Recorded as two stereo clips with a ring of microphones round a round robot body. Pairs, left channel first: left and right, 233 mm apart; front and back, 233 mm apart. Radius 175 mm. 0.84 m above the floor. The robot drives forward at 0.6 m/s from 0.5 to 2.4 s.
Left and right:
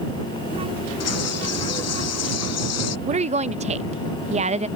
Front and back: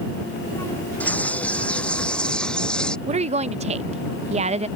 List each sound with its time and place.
1.0 s a bird: 85° left
3.1 s a woman speaking: 135° right